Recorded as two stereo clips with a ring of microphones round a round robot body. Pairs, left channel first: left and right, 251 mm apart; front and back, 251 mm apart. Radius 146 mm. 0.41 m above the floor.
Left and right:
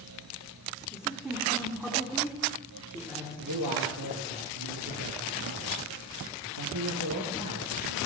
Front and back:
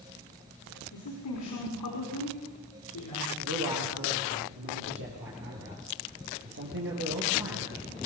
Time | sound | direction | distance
0.9 | a woman speaking | straight ahead | 4.5 m
3.4 | a man speaking | 130° right | 7.5 m